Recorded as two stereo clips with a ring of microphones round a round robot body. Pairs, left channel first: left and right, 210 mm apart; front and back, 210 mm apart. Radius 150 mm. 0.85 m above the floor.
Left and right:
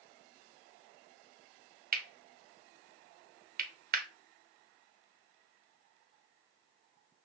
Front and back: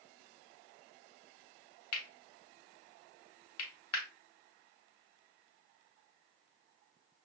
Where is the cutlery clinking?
40° right, 0.8 m.